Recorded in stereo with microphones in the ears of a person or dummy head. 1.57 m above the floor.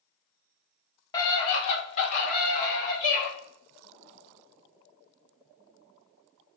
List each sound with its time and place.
1.1 s a scream: 20° left (ahead or behind), 1.2 m; by 3.3 s 55° left (ahead or behind), 2.5 m